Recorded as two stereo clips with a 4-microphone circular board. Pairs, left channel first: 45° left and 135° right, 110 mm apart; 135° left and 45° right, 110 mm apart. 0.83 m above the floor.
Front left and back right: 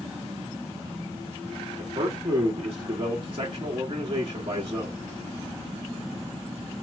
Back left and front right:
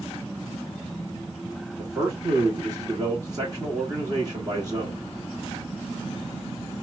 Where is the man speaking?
95° right, 1.2 m.